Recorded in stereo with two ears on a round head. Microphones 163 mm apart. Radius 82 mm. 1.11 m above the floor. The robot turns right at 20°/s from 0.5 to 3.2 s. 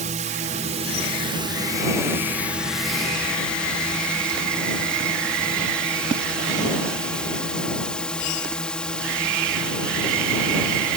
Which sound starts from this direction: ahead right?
A drone, at 0.0 s.